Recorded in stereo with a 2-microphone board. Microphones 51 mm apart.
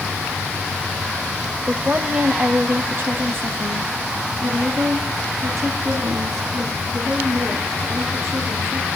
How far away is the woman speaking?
About 1.1 m.